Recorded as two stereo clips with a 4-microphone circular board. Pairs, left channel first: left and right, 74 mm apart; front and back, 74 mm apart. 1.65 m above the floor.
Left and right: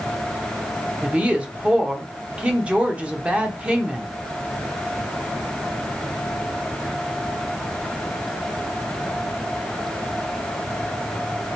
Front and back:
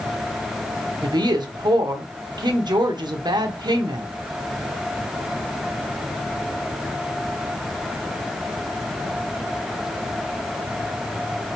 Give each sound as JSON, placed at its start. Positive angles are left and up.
{"t": 1.0, "sound": "a woman speaking", "azimuth_deg": -165, "distance_m": 0.8}